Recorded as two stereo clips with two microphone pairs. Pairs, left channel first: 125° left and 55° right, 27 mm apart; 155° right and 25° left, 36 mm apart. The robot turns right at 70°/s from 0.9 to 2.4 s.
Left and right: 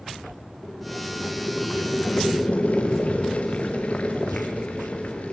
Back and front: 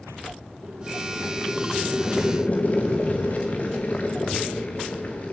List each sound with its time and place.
0.6 s boiling: 55° left, 4 m; by 5.3 s 160° left, 4 m